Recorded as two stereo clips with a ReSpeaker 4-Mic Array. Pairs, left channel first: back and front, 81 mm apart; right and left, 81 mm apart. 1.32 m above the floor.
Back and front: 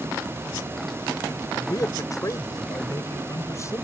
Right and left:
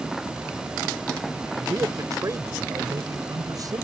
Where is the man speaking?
140° left; by 3.8 s 130° left.